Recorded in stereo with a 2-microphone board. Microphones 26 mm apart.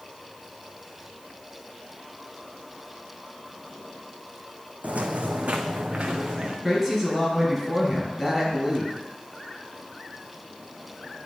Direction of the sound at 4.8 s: 70° right (ahead or behind).